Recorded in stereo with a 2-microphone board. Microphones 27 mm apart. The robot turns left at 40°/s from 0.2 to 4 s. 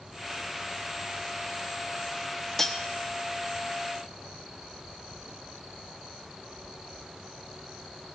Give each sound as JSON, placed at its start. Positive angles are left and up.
{"t": 2.6, "sound": "cutlery clinking", "side_deg": 10, "distance_m": 0.7}